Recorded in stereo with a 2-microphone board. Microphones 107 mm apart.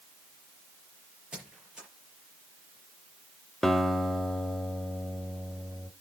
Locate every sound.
1.3 s a squeak: 10° right (ahead or behind), 6 m
3.6 s a guitar: 5° left (ahead or behind), 0.9 m